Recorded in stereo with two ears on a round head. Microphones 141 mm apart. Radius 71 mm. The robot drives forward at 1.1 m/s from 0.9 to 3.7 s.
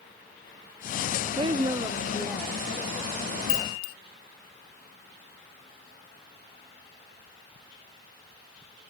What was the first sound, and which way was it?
A woman speaking, 30° right (ahead or behind).